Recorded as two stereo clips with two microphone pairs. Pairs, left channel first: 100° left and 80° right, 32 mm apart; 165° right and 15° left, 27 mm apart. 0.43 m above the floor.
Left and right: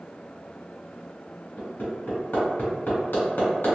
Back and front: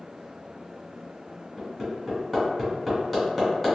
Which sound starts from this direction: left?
Hammering, at 1.6 s.